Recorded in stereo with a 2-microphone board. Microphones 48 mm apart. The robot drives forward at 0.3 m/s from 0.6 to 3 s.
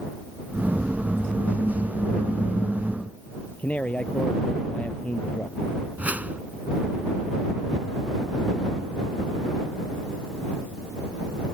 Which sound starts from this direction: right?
A whoosh, at 6.0 s.